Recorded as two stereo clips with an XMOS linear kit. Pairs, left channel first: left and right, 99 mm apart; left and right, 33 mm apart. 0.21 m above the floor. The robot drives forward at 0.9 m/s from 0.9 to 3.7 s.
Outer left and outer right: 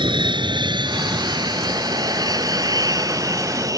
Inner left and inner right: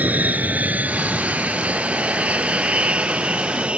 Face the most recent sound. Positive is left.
turn(degrees=-35)  # may be behind; listen again after turning